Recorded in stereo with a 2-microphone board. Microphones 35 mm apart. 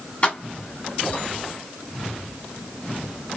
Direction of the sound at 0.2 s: 40° left (ahead or behind).